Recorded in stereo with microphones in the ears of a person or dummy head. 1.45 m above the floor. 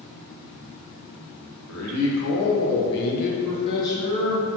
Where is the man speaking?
80° left, 1.0 m; by 4.5 s 10° left (ahead or behind), 1.1 m.